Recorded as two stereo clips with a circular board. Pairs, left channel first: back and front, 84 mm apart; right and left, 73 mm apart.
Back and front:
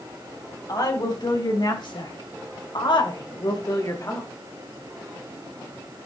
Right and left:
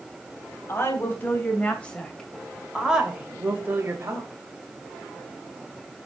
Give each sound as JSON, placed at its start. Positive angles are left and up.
{"t": 0.7, "sound": "a woman speaking", "azimuth_deg": -145, "distance_m": 3.0}